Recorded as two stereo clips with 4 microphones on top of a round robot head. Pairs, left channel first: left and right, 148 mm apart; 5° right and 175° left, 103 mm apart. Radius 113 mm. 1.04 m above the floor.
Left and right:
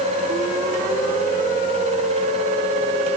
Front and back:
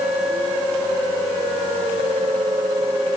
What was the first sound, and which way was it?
Only background noise.